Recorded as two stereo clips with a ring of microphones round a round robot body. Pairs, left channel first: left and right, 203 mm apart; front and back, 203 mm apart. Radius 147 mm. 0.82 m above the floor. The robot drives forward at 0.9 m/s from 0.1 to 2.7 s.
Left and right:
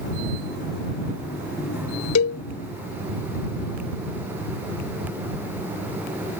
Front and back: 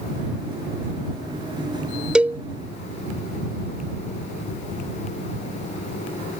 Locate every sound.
2.1 s a cowbell: 95° left; by 2.4 s 105° left